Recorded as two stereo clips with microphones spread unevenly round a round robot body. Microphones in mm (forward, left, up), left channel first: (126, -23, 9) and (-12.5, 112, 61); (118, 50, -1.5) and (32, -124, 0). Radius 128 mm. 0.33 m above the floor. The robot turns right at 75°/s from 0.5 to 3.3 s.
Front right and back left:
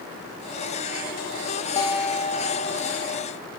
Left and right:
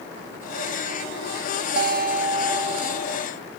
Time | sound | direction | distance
1.8 | a guitar | 105° right | 2.5 m